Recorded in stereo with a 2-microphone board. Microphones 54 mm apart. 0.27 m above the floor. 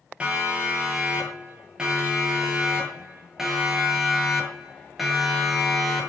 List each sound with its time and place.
0.2 s a siren: 20° right (ahead or behind), 9 m; by 6.1 s centre (ahead or behind), 7 m